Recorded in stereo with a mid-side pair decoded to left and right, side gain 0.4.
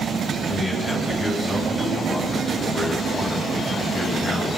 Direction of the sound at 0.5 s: 25° left.